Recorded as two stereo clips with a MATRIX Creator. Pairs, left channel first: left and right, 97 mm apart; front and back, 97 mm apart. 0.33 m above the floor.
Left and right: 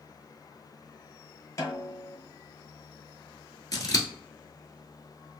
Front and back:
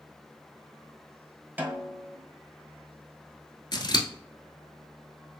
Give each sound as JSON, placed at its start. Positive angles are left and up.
{"t": 1.6, "sound": "a snare drum", "azimuth_deg": 120, "distance_m": 1.0}
{"t": 3.7, "sound": "scissors", "azimuth_deg": 40, "distance_m": 0.9}